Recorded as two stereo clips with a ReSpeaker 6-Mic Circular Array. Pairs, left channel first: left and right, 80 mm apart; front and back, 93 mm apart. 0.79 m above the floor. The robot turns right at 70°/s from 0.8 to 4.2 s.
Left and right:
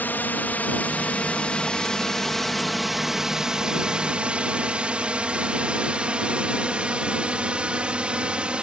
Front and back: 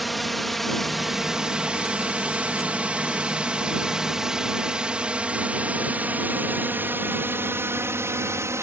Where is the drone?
90° left; by 8.6 s 155° right.